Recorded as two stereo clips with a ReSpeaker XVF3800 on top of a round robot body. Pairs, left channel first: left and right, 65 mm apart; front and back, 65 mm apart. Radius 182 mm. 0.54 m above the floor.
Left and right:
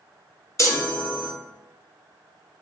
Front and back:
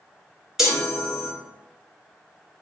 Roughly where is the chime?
Left.